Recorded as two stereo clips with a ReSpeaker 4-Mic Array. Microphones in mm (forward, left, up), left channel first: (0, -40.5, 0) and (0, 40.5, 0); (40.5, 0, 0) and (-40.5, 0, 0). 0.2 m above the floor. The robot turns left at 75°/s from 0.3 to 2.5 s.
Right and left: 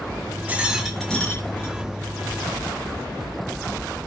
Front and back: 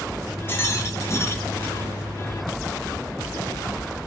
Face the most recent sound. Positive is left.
turn(degrees=-120)